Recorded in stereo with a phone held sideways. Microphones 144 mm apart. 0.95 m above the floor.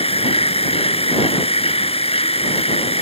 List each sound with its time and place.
0.0 s a machine running: 45° left (ahead or behind)